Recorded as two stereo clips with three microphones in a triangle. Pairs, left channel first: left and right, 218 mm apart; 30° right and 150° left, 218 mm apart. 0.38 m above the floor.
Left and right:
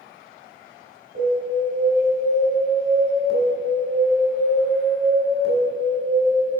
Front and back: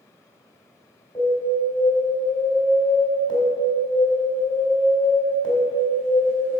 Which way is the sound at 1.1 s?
100° right.